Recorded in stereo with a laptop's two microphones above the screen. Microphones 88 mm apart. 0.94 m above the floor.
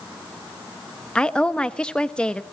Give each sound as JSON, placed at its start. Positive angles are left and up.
{"t": 1.1, "sound": "a woman speaking", "side_deg": 10, "distance_m": 0.9}